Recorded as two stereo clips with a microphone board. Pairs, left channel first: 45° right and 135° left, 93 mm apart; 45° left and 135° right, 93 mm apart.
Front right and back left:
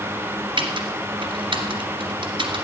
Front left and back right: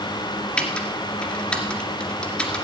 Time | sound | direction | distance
0.6 | typing on a keyboard | 125° left | 2.0 m